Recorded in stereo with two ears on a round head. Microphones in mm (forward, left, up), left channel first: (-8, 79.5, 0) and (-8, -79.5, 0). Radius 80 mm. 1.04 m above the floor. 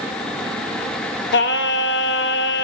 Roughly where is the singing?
Left.